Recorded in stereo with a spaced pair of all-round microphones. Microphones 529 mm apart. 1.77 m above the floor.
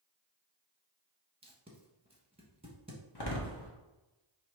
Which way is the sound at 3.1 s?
45° left (ahead or behind).